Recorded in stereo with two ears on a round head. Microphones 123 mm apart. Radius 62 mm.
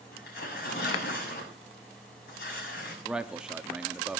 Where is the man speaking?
5° right (ahead or behind), 0.9 m.